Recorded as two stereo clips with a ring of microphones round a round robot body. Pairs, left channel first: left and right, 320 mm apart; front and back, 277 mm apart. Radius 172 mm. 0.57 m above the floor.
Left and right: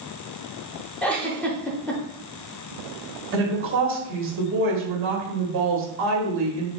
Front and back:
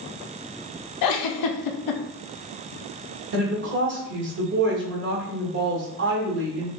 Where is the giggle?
5° left, 0.5 m.